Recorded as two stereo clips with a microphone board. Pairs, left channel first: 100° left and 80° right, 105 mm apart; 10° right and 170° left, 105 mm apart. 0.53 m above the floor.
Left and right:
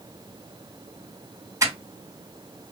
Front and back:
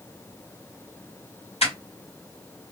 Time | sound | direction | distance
1.6 | crushing | 20° right | 2 m